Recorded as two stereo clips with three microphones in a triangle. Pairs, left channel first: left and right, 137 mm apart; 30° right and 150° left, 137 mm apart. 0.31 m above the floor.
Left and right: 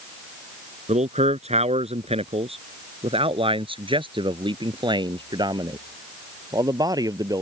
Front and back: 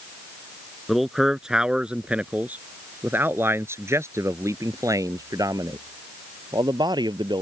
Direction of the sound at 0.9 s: 120° right.